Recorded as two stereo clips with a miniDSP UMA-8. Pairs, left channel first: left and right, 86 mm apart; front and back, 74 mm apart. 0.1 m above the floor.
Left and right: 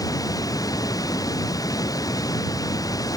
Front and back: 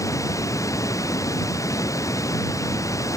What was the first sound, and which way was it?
Running water, 45° left.